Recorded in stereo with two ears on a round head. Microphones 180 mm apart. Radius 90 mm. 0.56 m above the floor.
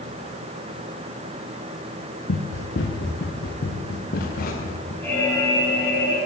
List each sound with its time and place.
2.3 s running footsteps: 65° left (ahead or behind), 3.5 m; by 4.9 s 45° left (ahead or behind), 6 m
5.0 s an alarm: 10° left (ahead or behind), 6 m